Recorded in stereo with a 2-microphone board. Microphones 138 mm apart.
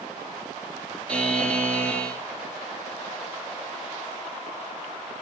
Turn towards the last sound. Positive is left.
turn(degrees=10)  # may be behind; listen again after turning